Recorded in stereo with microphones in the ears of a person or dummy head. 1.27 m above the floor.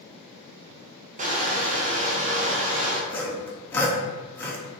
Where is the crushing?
35° right (ahead or behind), 0.6 m.